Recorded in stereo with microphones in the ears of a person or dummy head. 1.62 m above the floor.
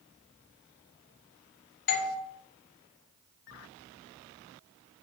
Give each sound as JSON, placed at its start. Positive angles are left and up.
{"t": 1.9, "sound": "a doorbell", "side_deg": 50, "distance_m": 0.9}